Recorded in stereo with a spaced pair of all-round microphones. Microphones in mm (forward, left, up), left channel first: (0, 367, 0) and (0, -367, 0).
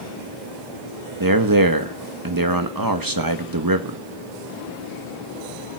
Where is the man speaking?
30° right (ahead or behind), 1.5 m.